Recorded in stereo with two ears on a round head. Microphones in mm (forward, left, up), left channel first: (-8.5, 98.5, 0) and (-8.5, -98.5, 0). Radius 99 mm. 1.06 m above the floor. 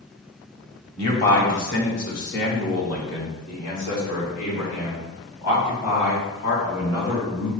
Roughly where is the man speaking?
Left.